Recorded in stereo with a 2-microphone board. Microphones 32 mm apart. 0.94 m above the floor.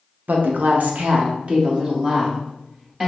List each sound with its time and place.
0.3 s a woman speaking: 65° right (ahead or behind), 0.6 m; by 3.1 s 20° right (ahead or behind), 1.5 m